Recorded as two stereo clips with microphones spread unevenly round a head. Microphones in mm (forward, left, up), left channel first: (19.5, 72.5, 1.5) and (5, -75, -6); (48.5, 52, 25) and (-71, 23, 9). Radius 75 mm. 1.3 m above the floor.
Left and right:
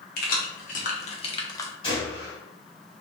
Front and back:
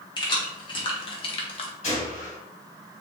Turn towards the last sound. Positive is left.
turn(degrees=35)